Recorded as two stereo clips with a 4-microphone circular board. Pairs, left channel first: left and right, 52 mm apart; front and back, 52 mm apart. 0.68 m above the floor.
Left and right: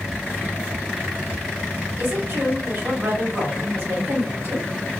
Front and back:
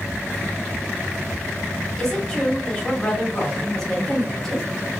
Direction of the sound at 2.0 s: 80° right.